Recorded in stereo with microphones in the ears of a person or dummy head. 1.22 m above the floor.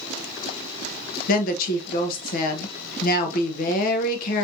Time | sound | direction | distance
1.3 | a woman speaking | 50° left (ahead or behind) | 1.1 m